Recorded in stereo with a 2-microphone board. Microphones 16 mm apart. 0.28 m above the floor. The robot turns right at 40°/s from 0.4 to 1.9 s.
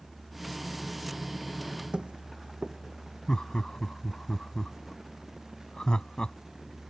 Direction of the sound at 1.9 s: 75° right (ahead or behind).